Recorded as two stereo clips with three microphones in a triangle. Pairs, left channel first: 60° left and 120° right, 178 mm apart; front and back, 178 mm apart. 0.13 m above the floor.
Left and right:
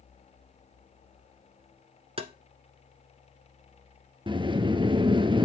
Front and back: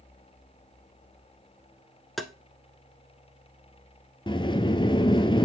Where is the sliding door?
60° right, 0.5 m.